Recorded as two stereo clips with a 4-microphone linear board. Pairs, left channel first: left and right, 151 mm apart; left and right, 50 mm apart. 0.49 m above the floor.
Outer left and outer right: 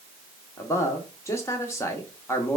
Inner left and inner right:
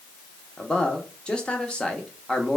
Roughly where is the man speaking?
Centre.